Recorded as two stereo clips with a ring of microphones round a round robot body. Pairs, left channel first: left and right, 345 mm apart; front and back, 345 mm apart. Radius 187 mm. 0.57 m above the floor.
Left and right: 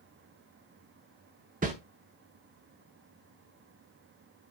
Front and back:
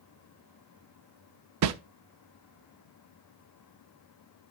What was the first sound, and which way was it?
A whoosh, 155° right.